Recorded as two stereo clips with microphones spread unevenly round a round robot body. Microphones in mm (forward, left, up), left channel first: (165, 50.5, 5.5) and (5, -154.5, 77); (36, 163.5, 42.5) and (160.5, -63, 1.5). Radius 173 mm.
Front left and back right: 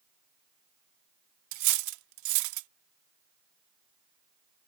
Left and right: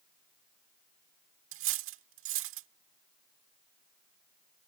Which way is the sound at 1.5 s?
105° right.